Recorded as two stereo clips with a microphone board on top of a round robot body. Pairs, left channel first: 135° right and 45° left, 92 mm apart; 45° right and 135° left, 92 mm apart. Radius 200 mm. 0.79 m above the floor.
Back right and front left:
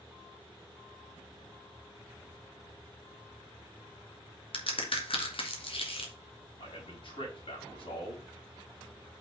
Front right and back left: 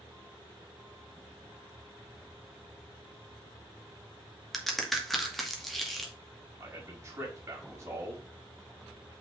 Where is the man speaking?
160° right, 5 m.